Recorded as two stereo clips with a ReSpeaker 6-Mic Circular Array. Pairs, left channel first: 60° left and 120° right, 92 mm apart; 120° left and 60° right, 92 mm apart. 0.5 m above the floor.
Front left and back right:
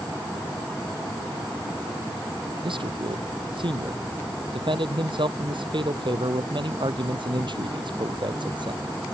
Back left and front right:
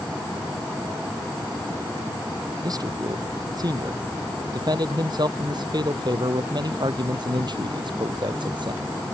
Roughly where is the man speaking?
Right.